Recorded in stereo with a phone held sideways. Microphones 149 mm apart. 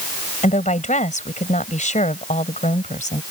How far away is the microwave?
I don't hear a microwave.